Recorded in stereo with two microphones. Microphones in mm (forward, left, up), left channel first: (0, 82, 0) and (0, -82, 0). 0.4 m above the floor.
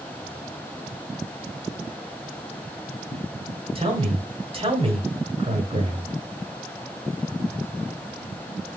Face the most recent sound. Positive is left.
turn(degrees=-35)  # may be behind; listen again after turning